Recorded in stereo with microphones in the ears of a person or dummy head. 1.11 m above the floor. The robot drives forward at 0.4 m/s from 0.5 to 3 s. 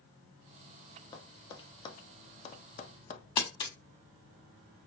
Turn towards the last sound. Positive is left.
turn(degrees=25)  # may be behind; listen again after turning